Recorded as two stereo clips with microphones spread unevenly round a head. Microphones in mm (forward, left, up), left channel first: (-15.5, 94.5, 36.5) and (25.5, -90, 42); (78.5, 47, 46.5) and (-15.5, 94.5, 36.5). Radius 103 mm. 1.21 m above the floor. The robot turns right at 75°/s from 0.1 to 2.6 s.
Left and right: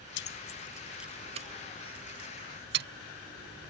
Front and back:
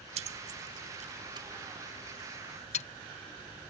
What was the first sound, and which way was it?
Keys jangling, 135° left.